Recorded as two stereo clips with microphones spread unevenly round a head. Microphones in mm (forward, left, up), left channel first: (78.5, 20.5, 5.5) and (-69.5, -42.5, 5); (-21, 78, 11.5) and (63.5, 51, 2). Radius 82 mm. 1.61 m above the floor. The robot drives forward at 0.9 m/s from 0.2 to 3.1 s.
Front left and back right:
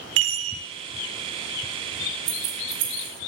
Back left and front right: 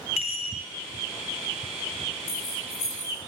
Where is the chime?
150° right, 1.0 m; by 0.6 s 160° right, 1.3 m.